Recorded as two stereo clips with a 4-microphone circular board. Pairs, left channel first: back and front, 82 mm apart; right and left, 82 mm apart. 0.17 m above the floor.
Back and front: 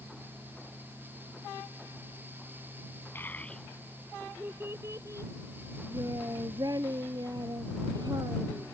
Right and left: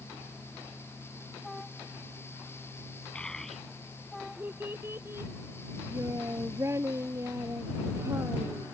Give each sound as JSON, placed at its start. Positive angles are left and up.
{"t": 3.1, "sound": "a child speaking", "azimuth_deg": -155}